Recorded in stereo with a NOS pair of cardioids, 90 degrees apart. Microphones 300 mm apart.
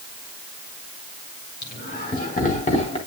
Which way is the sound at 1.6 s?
35° left.